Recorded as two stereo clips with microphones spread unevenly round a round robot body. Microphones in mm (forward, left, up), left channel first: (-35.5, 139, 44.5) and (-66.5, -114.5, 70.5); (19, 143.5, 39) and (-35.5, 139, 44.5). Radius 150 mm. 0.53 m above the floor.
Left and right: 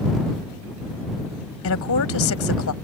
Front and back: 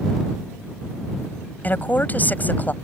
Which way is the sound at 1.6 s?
60° left.